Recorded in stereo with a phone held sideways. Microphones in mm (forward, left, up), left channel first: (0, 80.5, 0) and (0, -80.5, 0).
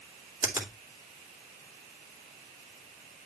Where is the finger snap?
15° right (ahead or behind), 2 m.